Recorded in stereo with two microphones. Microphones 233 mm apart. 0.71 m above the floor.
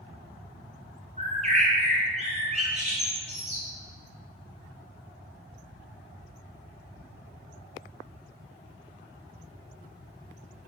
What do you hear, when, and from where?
1.2 s a bird: 30° right (ahead or behind), 2.5 m